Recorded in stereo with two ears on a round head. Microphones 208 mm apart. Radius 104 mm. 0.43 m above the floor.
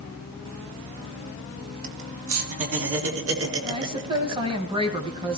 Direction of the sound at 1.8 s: 75° right (ahead or behind).